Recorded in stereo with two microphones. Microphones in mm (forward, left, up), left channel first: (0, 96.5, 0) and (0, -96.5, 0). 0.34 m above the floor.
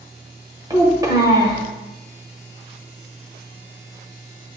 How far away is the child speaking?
About 0.9 m.